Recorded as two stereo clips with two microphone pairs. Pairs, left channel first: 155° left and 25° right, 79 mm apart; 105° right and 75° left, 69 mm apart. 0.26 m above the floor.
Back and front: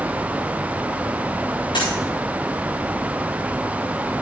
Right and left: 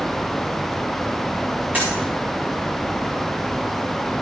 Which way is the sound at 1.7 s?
145° left.